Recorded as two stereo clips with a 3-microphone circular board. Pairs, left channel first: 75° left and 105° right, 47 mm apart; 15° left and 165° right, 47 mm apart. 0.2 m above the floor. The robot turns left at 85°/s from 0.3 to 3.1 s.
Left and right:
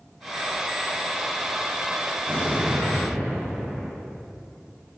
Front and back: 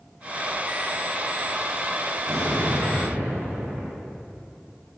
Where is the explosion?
135° right, 8.5 m; by 4.0 s 155° left, 8.5 m.